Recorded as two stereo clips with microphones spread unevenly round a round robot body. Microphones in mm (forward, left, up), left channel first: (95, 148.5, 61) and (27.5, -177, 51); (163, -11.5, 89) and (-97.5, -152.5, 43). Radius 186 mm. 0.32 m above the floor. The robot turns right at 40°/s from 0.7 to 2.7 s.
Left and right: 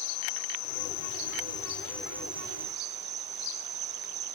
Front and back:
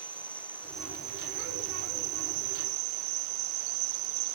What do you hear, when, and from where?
0.0 s an insect: 115° left; by 4.4 s 165° right